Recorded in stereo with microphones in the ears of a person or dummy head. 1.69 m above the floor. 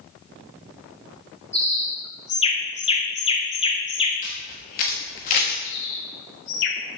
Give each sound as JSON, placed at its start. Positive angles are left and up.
{"t": 1.5, "sound": "a bird", "side_deg": 25, "distance_m": 0.9}
{"t": 4.2, "sound": "a camera shutter", "side_deg": 35, "distance_m": 1.2}
{"t": 5.6, "sound": "a bird", "side_deg": 40, "distance_m": 0.7}